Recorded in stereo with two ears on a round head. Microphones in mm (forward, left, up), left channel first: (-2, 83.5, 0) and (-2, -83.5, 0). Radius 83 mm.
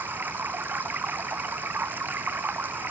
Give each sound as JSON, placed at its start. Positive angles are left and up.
{"t": 0.0, "sound": "running water", "side_deg": -10}